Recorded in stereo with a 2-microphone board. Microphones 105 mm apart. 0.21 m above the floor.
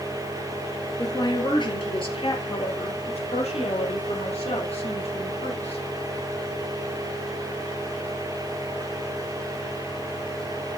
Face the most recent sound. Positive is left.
turn(degrees=80)